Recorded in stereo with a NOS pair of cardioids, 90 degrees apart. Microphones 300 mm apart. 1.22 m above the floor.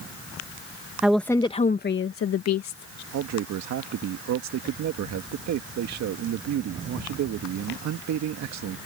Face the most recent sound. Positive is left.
turn(degrees=-70)